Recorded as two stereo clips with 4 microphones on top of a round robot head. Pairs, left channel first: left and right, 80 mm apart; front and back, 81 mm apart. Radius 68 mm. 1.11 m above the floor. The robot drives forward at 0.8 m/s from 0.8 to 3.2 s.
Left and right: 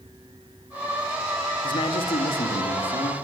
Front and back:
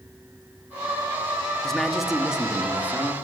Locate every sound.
1.6 s a man speaking: 85° left, 2 m; by 3.1 s 115° left, 2.5 m